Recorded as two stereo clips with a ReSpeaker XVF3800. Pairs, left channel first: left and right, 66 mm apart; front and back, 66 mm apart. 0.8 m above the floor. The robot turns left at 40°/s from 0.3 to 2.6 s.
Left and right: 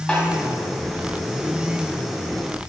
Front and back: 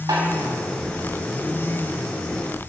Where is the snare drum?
165° left, 4 m.